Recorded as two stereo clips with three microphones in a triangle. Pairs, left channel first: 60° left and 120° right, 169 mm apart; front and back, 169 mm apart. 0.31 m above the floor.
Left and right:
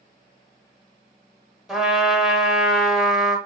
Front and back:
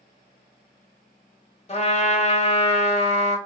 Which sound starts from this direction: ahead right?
A trumpet, at 1.7 s.